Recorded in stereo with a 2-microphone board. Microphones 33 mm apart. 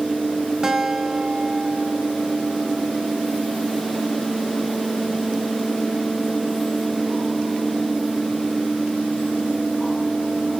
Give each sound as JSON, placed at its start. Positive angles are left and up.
{"t": 0.6, "sound": "a guitar", "side_deg": -20, "distance_m": 3.0}